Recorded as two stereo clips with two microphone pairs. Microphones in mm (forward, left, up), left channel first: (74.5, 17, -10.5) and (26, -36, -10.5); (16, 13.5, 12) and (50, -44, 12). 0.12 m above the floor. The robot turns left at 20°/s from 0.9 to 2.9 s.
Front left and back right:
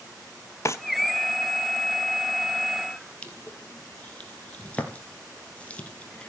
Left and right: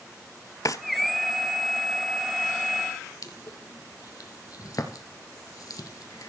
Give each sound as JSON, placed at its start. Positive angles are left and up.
{"t": 0.7, "sound": "a drawer", "azimuth_deg": 90, "distance_m": 0.9}
{"t": 3.2, "sound": "crushing", "azimuth_deg": 115, "distance_m": 1.9}